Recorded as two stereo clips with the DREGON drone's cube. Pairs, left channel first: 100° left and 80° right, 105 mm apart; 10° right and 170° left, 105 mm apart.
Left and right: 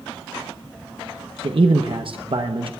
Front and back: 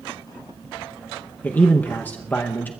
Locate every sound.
1.4 s a man speaking: 80° right, 0.8 m